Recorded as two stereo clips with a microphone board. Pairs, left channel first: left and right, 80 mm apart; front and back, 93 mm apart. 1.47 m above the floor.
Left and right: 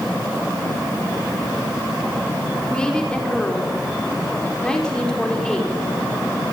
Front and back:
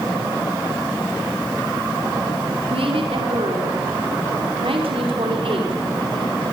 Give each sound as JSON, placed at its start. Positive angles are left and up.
{"t": 2.7, "sound": "a woman speaking", "azimuth_deg": 170, "distance_m": 4.5}